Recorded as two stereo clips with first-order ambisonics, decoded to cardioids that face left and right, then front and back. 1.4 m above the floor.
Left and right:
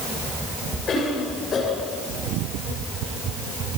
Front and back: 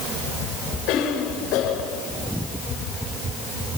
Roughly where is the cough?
Ahead left.